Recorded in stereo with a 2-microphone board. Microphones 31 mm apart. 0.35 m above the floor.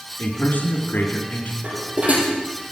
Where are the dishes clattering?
50° right (ahead or behind), 7 m.